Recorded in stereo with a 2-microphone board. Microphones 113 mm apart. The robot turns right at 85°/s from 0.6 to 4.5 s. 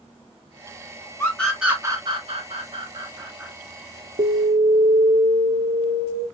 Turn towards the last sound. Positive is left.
turn(degrees=-65)  # may be behind; listen again after turning